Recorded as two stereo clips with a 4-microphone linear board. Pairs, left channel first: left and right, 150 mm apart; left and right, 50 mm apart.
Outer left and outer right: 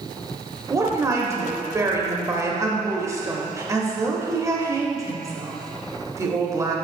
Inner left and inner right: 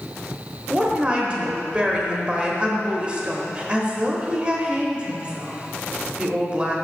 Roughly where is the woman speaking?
Right.